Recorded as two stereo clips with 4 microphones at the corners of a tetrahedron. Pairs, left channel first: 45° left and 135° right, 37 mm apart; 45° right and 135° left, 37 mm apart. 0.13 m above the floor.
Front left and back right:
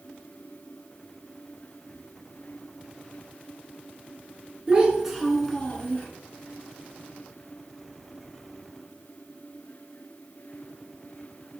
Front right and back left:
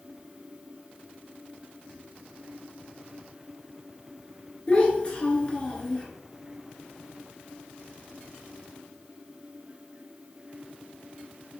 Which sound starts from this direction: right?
A child speaking, at 4.7 s.